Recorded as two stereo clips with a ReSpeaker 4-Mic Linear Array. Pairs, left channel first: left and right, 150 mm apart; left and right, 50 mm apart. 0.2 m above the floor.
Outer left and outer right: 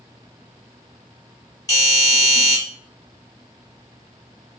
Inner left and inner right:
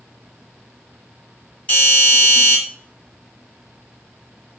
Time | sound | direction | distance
1.7 | a doorbell | 25° left (ahead or behind) | 1.5 m